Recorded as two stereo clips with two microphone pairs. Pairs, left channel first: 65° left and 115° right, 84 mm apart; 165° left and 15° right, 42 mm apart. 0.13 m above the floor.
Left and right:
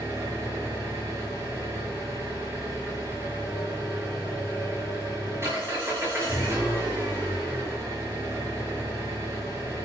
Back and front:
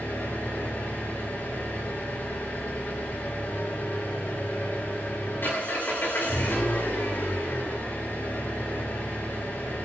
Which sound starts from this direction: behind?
An engine running, at 0.0 s.